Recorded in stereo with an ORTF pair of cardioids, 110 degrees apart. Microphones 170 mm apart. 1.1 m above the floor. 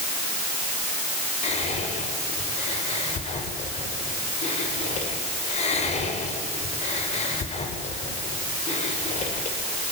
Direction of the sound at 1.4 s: 40° left.